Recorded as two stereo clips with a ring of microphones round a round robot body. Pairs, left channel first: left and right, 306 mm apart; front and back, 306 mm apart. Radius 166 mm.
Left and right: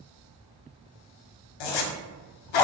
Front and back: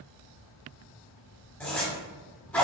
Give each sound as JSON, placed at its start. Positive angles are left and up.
{"t": 1.6, "sound": "a zipper", "azimuth_deg": 85, "distance_m": 0.5}